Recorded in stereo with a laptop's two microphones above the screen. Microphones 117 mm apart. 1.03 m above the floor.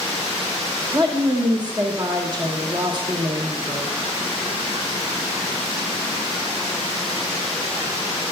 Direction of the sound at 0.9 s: 40° right (ahead or behind).